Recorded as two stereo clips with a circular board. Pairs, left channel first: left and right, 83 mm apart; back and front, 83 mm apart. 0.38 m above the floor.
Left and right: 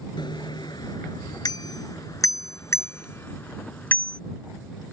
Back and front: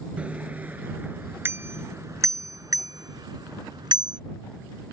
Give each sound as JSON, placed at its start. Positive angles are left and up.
{"t": 0.2, "sound": "a bicycle bell", "azimuth_deg": 75}